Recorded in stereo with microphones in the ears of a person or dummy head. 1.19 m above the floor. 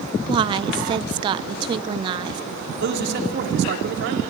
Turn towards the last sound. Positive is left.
turn(degrees=-60)  # may be behind; listen again after turning